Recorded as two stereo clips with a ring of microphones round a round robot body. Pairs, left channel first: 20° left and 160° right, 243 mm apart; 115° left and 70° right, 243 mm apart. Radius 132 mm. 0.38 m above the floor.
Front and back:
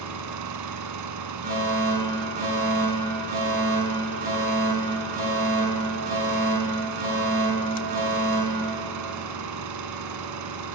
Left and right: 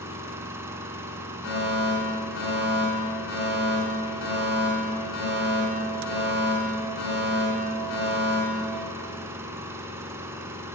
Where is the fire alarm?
150° left, 6.5 m.